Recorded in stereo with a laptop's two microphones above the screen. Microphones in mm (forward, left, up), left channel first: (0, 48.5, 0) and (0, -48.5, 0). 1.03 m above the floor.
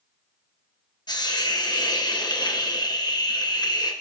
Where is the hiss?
45° left (ahead or behind), 0.9 m.